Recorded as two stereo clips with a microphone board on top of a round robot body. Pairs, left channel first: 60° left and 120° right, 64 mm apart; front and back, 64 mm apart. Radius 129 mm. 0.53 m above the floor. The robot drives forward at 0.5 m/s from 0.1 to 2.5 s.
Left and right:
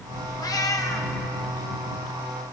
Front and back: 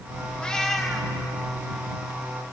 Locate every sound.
0.4 s a cat meowing: 75° left, 1.0 m; by 1.1 s 95° left, 1.0 m